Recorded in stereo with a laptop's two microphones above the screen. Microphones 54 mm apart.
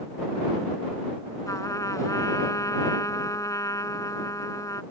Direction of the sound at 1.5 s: 85° left.